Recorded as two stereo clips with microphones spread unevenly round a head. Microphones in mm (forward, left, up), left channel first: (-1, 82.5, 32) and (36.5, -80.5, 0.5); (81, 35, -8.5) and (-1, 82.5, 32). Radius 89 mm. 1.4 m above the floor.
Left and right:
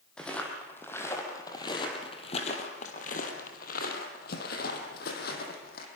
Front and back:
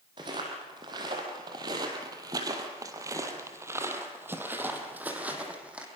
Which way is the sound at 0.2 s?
175° right.